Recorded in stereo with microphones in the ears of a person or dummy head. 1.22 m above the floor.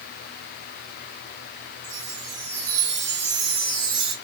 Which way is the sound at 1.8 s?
40° right (ahead or behind).